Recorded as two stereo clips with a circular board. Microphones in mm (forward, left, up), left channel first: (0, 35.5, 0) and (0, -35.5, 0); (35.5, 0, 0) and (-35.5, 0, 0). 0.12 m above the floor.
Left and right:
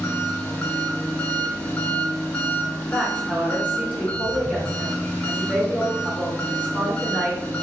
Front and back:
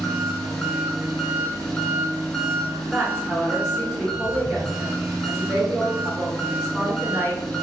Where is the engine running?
70° left, 0.7 m.